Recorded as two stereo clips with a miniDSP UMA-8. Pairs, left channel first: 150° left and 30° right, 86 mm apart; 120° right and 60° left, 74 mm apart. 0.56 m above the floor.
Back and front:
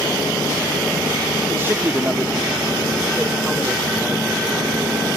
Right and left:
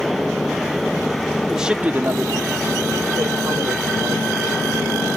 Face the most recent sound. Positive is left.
turn(degrees=70)